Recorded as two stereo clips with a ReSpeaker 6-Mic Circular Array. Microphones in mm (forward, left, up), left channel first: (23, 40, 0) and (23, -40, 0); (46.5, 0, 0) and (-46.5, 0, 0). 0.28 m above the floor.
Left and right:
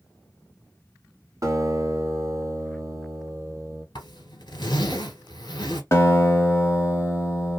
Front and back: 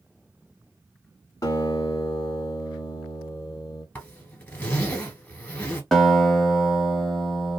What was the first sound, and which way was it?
A guitar, 45° right.